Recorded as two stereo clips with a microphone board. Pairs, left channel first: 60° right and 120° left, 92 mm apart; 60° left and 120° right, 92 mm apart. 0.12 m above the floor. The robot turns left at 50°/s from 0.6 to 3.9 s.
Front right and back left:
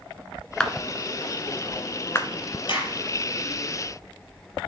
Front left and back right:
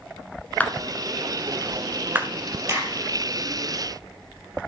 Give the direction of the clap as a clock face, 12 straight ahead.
12 o'clock.